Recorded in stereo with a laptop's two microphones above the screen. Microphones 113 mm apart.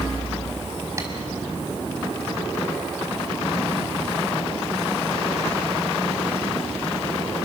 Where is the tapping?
25° right (ahead or behind), 4.5 m.